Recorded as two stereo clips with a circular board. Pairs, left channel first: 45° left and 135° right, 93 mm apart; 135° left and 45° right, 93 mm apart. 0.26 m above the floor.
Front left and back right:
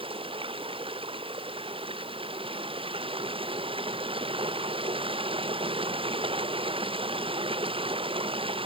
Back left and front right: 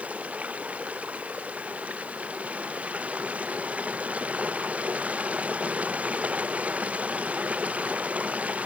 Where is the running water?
120° right.